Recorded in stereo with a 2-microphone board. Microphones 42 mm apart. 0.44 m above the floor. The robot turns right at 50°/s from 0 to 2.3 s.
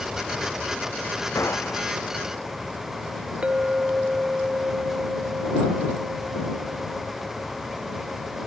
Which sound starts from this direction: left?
A gunshot, at 1.4 s.